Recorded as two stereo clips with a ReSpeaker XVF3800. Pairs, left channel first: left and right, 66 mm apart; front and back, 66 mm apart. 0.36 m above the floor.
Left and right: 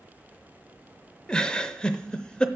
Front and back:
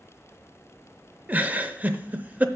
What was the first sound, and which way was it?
A giggle, 150° left.